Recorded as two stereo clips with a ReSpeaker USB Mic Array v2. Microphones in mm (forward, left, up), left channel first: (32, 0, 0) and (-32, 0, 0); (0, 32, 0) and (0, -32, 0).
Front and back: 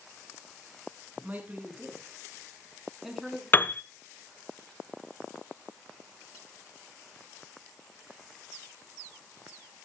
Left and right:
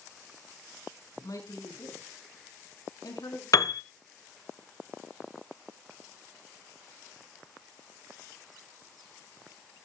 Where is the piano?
60° left, 0.6 m.